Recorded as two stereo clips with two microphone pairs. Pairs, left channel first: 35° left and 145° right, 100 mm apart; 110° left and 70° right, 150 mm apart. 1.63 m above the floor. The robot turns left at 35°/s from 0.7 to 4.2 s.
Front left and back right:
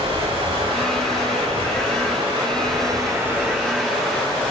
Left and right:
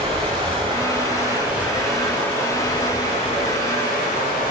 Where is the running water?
115° right, 5.5 m; by 4.5 s 120° left, 5.5 m.